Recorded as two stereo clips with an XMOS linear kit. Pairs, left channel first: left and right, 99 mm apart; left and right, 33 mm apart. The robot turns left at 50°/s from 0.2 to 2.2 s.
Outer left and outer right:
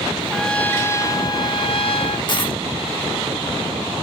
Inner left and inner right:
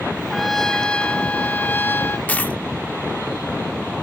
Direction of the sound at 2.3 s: 50° left (ahead or behind).